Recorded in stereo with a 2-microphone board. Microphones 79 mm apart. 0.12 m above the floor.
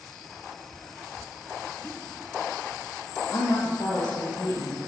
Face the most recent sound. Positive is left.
turn(degrees=60)  # may be behind; listen again after turning